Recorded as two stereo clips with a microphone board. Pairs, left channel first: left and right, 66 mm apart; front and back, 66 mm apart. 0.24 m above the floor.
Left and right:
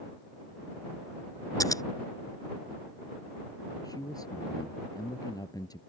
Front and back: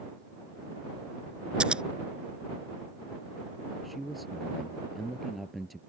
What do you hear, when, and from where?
1.6 s scissors: 105° left
3.8 s a man speaking: 90° left